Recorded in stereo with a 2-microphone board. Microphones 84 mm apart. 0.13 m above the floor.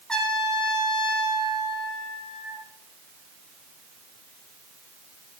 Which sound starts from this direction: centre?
A trumpet, at 0.1 s.